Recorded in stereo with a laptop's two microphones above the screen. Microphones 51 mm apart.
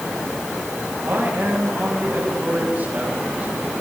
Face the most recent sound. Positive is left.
turn(degrees=-30)  # may be behind; listen again after turning